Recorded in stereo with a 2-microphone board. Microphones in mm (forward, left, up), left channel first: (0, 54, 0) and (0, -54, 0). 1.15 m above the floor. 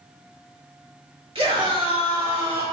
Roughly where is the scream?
Right.